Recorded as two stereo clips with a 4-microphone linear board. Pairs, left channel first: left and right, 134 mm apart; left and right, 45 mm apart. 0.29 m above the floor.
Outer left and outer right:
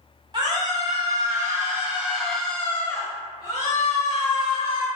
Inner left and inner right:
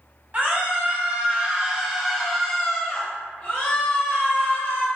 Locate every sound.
0.3 s a scream: 35° right (ahead or behind), 1.6 m; by 4.9 s 50° left (ahead or behind), 1.6 m